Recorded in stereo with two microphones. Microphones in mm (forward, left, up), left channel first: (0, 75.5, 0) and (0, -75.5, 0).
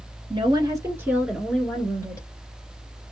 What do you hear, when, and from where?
0.3 s a woman speaking: 35° right (ahead or behind), 1.4 m; by 2.3 s 20° left (ahead or behind), 1.5 m